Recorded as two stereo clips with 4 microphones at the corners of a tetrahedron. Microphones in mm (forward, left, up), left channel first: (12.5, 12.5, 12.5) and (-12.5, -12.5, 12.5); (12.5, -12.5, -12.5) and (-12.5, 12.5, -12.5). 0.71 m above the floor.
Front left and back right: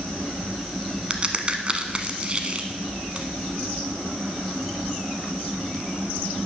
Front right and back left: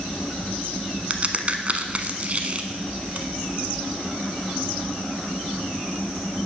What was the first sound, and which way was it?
A crack, 175° left.